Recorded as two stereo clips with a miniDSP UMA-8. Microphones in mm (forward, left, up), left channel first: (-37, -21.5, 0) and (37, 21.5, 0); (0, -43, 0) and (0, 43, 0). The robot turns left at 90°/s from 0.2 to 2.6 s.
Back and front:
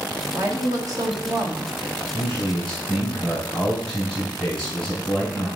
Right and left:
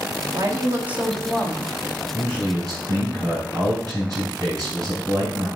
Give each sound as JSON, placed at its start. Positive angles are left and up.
{"t": 0.3, "sound": "a woman speaking", "azimuth_deg": 80, "distance_m": 1.4}
{"t": 2.1, "sound": "a man speaking", "azimuth_deg": 175, "distance_m": 4.0}